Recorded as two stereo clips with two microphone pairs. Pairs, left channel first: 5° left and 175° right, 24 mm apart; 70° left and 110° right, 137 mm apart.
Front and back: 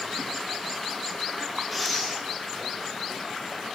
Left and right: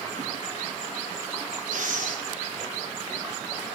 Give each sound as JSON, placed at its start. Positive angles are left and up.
{"t": 1.7, "sound": "breathing", "azimuth_deg": -105, "distance_m": 6.0}